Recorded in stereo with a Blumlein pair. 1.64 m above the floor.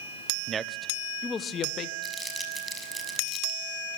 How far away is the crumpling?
About 6 m.